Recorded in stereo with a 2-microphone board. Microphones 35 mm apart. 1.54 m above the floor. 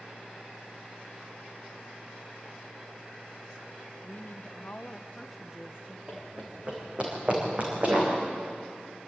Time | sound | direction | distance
4.0 | a woman speaking | 60° left (ahead or behind) | 1.4 m
6.1 | running footsteps | 30° right (ahead or behind) | 4.5 m